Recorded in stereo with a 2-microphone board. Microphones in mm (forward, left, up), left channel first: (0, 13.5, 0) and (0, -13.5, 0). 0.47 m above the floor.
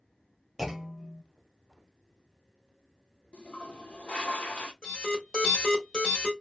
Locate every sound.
0.6 s a clunk: 10° right (ahead or behind), 0.7 m
3.3 s a toilet flushing: 45° left (ahead or behind), 0.8 m
4.8 s an alarm: 25° left (ahead or behind), 1.9 m